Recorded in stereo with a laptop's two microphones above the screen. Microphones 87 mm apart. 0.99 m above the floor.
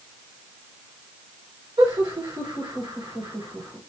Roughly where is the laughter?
Right.